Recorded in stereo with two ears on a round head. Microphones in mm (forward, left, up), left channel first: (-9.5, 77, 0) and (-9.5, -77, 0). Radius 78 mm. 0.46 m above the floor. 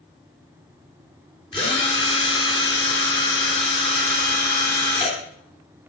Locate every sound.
1.5 s a drill: 25° left (ahead or behind), 3.5 m